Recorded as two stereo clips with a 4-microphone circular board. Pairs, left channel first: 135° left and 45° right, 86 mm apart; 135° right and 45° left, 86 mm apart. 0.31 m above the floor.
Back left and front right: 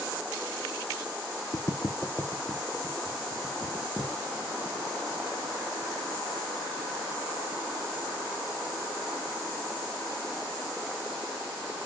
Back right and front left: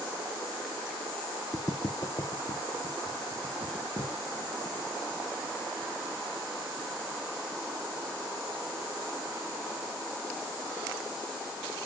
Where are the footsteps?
170° left, 1.1 m; by 4.1 s 130° right, 4 m.